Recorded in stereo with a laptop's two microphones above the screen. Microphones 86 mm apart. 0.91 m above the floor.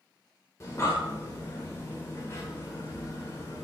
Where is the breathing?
35° left (ahead or behind), 1.2 m.